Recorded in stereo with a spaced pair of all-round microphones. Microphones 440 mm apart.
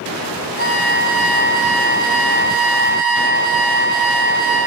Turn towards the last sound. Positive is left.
turn(degrees=-20)  # may be behind; listen again after turning